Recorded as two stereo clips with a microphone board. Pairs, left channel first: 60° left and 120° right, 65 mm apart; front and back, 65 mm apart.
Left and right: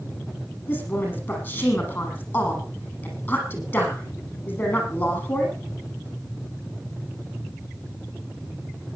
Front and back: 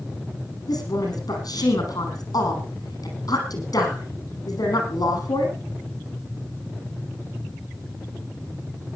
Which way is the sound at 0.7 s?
5° left.